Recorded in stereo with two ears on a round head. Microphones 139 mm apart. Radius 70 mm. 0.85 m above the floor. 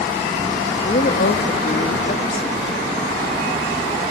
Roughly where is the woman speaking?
Left.